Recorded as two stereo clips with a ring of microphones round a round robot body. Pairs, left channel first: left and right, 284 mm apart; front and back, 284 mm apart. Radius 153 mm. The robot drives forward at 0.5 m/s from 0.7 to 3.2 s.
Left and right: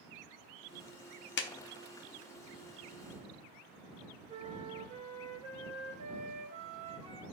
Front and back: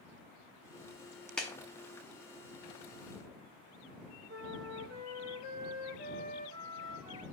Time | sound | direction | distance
1.4 | a clap | 85° left | 0.6 m
4.3 | a flute | 155° right | 1.8 m